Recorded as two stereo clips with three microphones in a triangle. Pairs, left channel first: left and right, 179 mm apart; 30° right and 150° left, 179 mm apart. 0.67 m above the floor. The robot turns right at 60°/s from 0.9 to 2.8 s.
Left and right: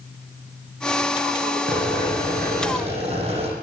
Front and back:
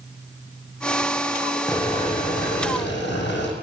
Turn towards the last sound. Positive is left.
turn(degrees=-35)